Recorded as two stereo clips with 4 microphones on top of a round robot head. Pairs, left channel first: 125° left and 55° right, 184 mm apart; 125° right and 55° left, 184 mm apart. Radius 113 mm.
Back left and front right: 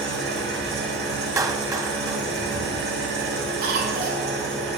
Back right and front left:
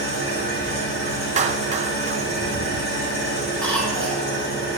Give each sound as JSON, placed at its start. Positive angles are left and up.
{"t": 0.0, "sound": "an engine running", "azimuth_deg": -90, "distance_m": 3.0}
{"t": 1.4, "sound": "a clap", "azimuth_deg": 15, "distance_m": 0.9}
{"t": 3.6, "sound": "a cough", "azimuth_deg": -40, "distance_m": 7.5}